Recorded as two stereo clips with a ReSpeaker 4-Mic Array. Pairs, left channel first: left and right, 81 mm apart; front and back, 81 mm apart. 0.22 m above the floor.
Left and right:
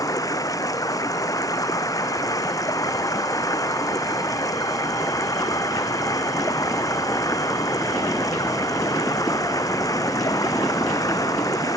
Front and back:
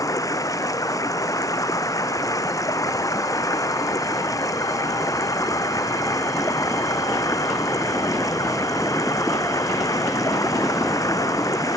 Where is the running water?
45° left.